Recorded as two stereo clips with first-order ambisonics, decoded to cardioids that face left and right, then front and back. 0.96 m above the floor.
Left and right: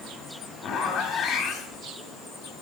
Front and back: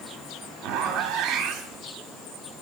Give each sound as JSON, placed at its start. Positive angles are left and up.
{"t": 0.6, "sound": "a zipper", "azimuth_deg": 145, "distance_m": 0.8}